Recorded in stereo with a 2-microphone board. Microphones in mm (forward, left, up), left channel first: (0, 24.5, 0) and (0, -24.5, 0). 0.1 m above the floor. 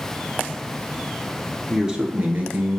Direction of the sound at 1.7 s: 10° right (ahead or behind).